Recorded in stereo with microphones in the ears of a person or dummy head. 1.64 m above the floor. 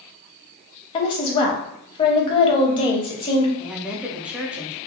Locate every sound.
0.9 s a woman speaking: 25° left (ahead or behind), 0.7 m
3.6 s a woman speaking: 10° right (ahead or behind), 0.5 m